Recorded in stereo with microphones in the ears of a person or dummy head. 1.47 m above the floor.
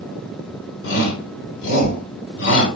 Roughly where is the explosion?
I don't hear an explosion.